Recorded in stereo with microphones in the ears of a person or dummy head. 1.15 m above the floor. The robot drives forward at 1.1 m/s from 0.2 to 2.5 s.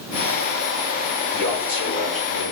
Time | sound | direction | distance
1.3 | a man speaking | 70° left (ahead or behind) | 4.5 m